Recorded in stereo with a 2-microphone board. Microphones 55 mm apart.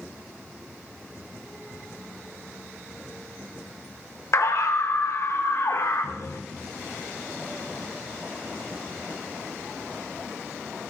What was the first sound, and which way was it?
A scream, 65° left (ahead or behind).